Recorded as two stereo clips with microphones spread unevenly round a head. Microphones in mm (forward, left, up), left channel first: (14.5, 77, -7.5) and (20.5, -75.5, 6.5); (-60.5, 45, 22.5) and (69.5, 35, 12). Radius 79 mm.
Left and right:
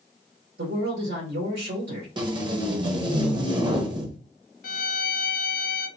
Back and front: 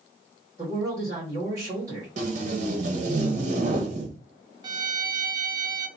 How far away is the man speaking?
About 1.9 m.